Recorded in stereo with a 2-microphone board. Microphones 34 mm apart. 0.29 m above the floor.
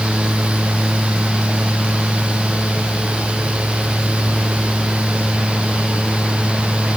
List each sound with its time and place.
Only background noise.